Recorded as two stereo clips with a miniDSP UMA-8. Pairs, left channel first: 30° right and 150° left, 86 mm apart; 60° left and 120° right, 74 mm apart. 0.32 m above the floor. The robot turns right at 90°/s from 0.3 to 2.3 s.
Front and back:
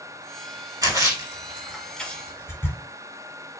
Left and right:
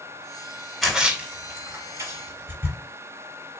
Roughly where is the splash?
Behind left.